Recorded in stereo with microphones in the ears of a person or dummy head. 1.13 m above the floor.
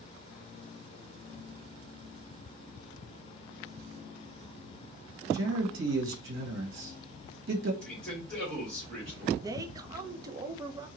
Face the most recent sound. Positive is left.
turn(degrees=-20)  # may be behind; listen again after turning